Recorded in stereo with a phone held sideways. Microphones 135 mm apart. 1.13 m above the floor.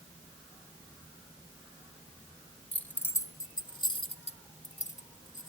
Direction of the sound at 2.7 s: 10° left (ahead or behind).